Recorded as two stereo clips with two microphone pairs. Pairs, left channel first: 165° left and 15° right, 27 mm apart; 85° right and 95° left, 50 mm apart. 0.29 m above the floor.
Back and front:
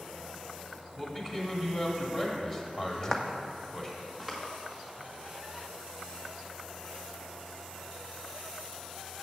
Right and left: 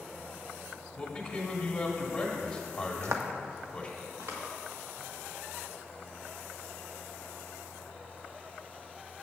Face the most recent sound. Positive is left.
turn(degrees=65)